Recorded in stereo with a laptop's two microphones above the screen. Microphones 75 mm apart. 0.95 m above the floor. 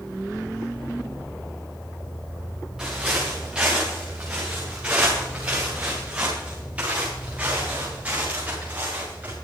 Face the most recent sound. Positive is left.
turn(degrees=-20)  # may be behind; listen again after turning